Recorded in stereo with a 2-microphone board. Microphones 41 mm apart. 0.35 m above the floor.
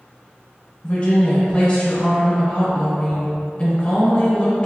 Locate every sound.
0.8 s a woman speaking: 25° left (ahead or behind), 1.2 m